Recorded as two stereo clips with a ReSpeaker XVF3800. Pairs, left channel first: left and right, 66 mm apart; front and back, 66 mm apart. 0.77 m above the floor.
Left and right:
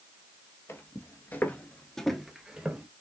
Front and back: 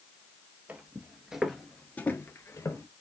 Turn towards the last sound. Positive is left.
turn(degrees=-20)